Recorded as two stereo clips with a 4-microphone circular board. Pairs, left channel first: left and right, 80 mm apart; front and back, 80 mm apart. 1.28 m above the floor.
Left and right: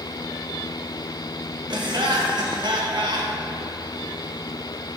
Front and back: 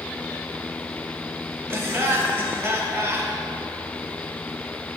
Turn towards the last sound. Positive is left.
turn(degrees=-120)